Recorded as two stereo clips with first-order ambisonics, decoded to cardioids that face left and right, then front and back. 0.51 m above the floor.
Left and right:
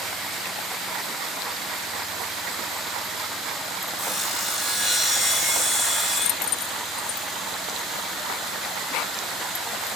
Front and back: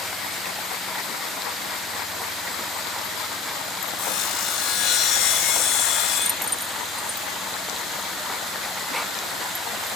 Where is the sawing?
15° right, 1.6 m.